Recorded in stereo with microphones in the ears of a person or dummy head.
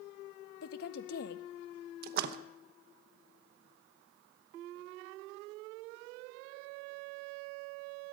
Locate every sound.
0.6 s a woman speaking: 60° left (ahead or behind), 0.6 m
2.0 s a splash: 55° right (ahead or behind), 0.9 m